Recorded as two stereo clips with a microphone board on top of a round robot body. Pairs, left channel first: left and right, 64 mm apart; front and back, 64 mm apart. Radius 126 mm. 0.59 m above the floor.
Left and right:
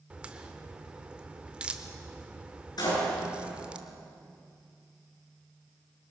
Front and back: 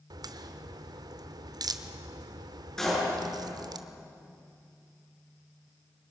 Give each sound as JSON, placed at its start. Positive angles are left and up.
{"t": 0.1, "sound": "a crack", "azimuth_deg": -165, "distance_m": 1.0}
{"t": 2.8, "sound": "a door slam", "azimuth_deg": 85, "distance_m": 9.0}